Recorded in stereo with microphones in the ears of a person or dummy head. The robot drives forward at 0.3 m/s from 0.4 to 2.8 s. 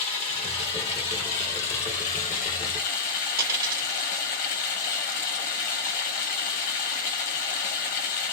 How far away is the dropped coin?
About 1.5 m.